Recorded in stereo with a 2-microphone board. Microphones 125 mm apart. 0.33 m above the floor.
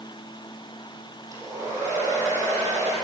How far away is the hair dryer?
About 8.5 m.